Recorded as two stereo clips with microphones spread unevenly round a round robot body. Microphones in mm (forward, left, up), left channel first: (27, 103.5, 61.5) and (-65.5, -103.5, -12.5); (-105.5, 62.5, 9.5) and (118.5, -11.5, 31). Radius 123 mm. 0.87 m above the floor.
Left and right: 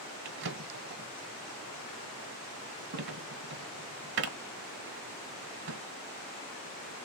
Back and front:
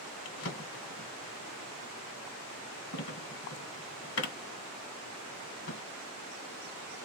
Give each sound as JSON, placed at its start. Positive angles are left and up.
{"t": 0.2, "sound": "a drawer", "azimuth_deg": -155, "distance_m": 1.2}